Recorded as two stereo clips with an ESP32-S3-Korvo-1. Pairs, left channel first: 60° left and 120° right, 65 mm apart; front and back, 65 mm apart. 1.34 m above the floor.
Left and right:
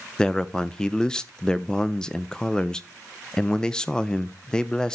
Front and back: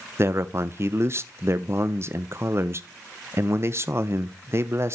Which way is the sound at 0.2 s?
140° left.